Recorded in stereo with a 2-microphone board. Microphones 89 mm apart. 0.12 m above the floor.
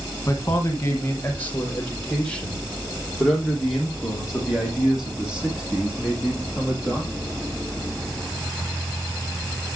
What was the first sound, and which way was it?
A man speaking, 35° left (ahead or behind).